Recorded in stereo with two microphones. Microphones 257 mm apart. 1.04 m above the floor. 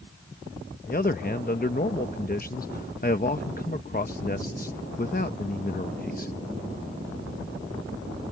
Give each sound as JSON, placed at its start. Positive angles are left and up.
{"t": 0.9, "sound": "a man speaking", "side_deg": 35}